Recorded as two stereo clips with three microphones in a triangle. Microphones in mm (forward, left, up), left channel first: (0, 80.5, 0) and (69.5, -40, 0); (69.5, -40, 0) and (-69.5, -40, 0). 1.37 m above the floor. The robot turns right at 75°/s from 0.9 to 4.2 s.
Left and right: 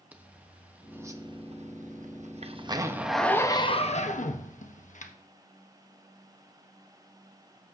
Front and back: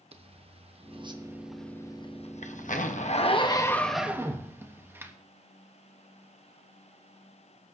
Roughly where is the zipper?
Behind right.